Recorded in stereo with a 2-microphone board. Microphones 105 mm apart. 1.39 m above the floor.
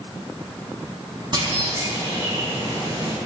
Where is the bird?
45° right (ahead or behind), 4 m.